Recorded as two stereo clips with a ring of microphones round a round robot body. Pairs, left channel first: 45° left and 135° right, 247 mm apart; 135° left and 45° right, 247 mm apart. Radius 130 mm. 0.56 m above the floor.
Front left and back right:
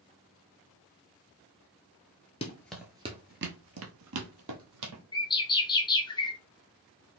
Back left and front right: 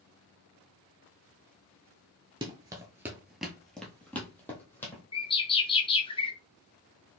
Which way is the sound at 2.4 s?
10° left.